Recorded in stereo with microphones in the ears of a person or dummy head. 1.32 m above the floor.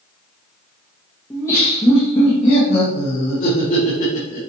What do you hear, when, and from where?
1.3 s laughter: 15° left (ahead or behind), 1.3 m; by 4.4 s 50° left (ahead or behind), 2.5 m